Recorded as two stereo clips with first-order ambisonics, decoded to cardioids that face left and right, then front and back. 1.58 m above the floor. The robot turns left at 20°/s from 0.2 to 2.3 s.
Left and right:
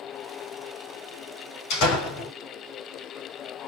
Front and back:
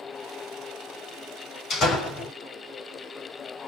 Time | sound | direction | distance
1.7 | a door slam | 65° left | 4.5 m